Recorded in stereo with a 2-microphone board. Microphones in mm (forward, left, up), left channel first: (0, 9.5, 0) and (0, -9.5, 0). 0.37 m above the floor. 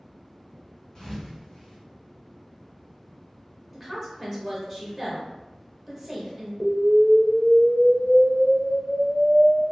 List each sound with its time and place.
0.9 s a thud: 35° left (ahead or behind), 1.4 m
3.7 s a woman speaking: 5° right (ahead or behind), 1.3 m
6.6 s an explosion: 55° left (ahead or behind), 0.7 m